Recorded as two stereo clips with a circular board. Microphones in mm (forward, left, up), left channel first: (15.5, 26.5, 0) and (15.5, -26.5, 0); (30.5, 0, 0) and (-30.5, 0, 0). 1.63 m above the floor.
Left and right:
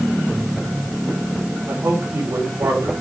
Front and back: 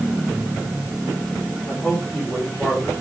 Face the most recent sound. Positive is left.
turn(degrees=-75)